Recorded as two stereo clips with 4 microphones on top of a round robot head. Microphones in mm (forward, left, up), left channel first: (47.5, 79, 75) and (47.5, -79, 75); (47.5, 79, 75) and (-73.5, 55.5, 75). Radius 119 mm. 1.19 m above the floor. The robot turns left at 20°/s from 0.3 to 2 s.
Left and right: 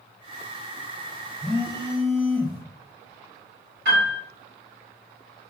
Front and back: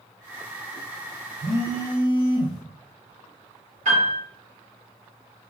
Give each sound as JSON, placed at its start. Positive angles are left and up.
{"t": 1.4, "sound": "a phone buzzing", "azimuth_deg": -115, "distance_m": 0.8}
{"t": 3.9, "sound": "a piano", "azimuth_deg": -120, "distance_m": 1.5}